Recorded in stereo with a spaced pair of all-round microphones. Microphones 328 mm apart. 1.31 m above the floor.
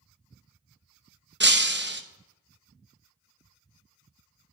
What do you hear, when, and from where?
1.4 s breaking glass: 35° right (ahead or behind), 0.8 m